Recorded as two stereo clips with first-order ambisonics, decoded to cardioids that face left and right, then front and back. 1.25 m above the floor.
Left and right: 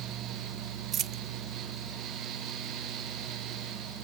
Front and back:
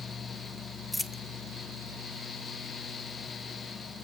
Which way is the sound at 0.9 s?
85° right.